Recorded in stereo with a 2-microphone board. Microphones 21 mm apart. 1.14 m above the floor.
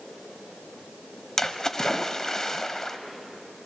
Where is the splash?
20° left (ahead or behind), 1.0 m.